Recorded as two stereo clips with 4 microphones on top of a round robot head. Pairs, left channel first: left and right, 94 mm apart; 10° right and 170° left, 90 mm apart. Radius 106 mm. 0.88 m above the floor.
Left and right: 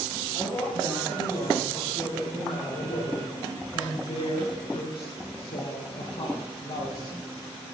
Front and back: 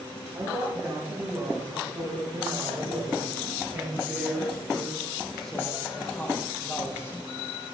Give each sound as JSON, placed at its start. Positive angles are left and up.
{"t": 0.3, "sound": "a woman speaking", "azimuth_deg": 135, "distance_m": 8.0}